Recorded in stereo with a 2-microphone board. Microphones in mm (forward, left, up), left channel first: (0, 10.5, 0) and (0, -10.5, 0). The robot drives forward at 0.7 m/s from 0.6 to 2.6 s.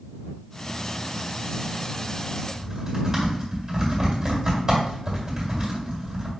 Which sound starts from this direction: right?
Typing on a keyboard, at 2.5 s.